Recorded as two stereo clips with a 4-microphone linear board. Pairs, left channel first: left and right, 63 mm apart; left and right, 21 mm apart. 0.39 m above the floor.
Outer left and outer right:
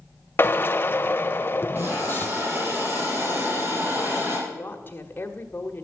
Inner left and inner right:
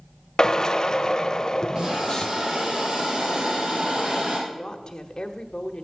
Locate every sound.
0.4 s a drill: 35° left (ahead or behind), 0.6 m
1.8 s a hiss: 35° right (ahead or behind), 5 m
4.5 s a woman speaking: 35° left (ahead or behind), 1.1 m